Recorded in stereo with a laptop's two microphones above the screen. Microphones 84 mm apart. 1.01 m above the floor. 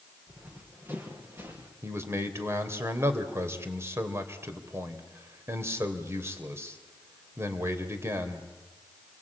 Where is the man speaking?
30° right (ahead or behind), 3.5 m.